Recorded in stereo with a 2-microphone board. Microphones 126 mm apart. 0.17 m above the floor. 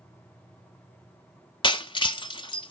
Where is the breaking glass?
40° left (ahead or behind), 0.5 m.